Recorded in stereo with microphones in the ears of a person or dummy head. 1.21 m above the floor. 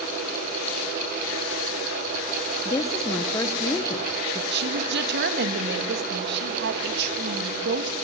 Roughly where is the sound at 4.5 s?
Right.